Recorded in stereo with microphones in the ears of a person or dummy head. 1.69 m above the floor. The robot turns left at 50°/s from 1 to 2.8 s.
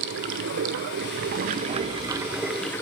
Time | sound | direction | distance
0.0 | running water | 105° right | 0.7 m